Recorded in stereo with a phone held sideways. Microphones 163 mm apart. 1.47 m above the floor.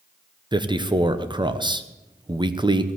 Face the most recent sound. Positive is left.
turn(degrees=-30)  # may be behind; listen again after turning